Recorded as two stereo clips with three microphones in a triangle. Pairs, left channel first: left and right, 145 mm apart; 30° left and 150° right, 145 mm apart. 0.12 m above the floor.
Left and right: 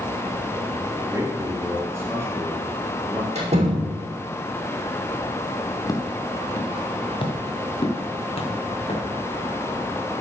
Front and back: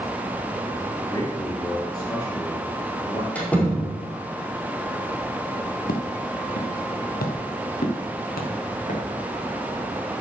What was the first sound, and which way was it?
A man speaking, 25° right.